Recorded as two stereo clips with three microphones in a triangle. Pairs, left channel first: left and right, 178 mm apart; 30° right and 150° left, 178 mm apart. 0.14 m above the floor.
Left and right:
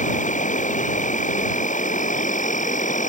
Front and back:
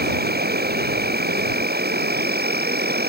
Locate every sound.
0.0 s an insect: 130° left